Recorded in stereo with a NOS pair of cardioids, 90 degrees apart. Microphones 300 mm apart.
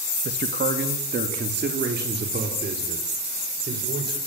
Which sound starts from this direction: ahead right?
A man speaking, at 0.2 s.